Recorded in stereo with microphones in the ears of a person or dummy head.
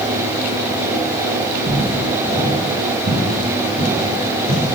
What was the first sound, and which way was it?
Footsteps, 25° right (ahead or behind).